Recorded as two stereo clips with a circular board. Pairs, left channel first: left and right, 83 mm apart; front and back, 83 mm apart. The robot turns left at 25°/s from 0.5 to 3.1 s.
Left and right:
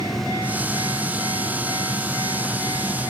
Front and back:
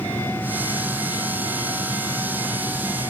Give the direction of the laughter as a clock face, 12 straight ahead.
No laughter in this recording.